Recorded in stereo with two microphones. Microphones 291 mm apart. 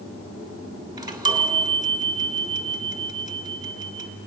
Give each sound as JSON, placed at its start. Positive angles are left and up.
{"t": 1.0, "sound": "a chime", "side_deg": -15, "distance_m": 1.6}